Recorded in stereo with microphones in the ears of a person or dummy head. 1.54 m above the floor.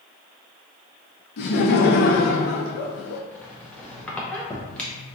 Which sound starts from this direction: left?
Laughter, at 1.4 s.